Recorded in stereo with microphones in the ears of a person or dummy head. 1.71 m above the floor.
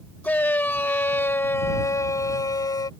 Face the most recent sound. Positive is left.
turn(degrees=15)  # may be behind; listen again after turning